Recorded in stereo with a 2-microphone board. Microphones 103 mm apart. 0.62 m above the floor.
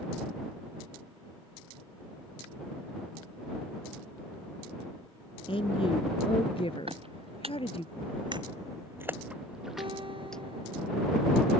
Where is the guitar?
60° right (ahead or behind).